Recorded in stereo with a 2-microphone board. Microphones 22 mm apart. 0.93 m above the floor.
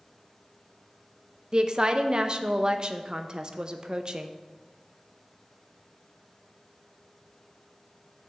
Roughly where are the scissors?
I don't hear scissors.